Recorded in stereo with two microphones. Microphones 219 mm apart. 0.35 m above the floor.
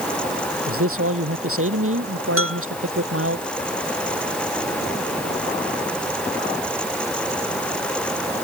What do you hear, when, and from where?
0.7 s a man speaking: 75° right (ahead or behind)
2.4 s a bell: 75° right (ahead or behind)